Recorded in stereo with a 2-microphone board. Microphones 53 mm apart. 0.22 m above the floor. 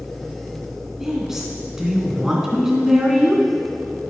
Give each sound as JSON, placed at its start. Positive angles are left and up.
{"t": 1.0, "sound": "a woman speaking", "side_deg": -15, "distance_m": 3.0}